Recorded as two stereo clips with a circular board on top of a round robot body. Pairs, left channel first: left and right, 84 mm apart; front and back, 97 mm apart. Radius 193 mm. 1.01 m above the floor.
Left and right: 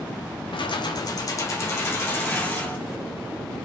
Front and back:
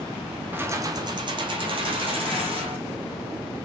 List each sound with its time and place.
0.5 s keys jangling: 110° left, 0.5 m; by 2.8 s 160° left, 1.7 m